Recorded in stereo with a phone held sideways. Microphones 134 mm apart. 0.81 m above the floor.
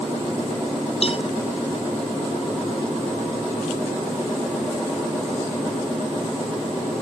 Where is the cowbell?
50° left (ahead or behind).